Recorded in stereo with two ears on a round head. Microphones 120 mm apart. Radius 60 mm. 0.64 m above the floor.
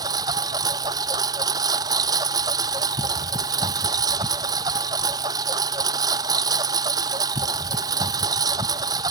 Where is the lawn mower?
30° right (ahead or behind).